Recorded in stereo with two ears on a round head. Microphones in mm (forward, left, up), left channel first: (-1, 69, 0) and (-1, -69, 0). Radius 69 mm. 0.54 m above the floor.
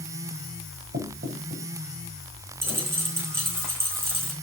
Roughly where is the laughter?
I don't hear laughter.